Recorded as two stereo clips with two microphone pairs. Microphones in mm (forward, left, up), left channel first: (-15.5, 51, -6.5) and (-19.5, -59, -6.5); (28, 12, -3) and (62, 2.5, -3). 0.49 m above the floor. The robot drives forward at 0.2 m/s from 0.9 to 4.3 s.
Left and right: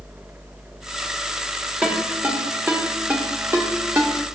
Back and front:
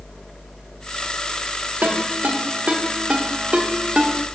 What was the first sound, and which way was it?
A ringtone, 20° right.